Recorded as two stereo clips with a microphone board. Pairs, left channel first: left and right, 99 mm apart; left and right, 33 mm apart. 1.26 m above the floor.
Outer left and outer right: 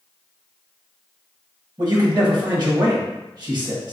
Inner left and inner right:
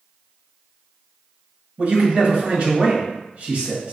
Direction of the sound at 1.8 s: 45° right (ahead or behind).